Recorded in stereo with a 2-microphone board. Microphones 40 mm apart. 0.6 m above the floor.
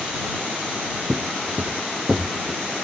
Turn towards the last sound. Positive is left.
turn(degrees=-15)  # may be behind; listen again after turning